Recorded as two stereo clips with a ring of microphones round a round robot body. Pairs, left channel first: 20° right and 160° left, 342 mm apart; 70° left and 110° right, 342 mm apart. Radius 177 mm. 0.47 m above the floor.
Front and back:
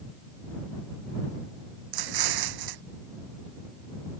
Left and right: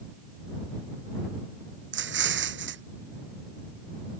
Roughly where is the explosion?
Behind.